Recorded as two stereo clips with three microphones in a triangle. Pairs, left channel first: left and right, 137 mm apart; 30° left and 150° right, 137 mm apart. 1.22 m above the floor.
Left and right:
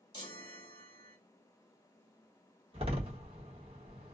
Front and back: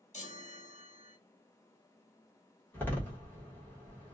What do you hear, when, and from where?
0.1 s a chime: 40° left, 1.1 m
2.7 s a door slam: 45° right, 1.1 m